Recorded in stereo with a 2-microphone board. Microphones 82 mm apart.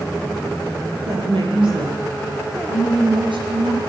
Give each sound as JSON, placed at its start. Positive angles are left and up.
{"t": 1.0, "sound": "a woman speaking", "side_deg": -75, "distance_m": 6.5}